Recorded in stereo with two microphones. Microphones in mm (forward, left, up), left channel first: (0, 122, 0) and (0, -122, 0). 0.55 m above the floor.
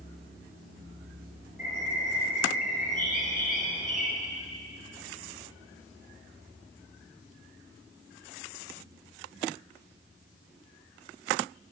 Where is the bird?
35° left (ahead or behind), 4.5 m.